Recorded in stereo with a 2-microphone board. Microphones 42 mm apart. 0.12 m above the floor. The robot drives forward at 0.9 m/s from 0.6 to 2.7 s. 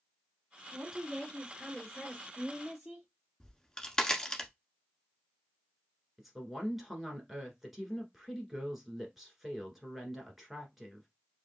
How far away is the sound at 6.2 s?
About 1.4 m.